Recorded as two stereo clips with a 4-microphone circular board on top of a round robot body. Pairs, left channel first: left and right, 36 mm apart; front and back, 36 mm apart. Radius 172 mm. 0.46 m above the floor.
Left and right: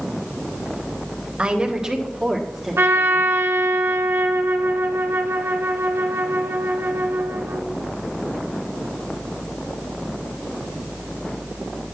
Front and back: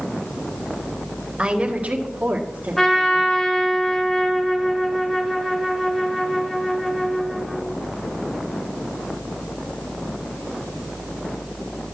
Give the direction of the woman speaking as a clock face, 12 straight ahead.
4 o'clock.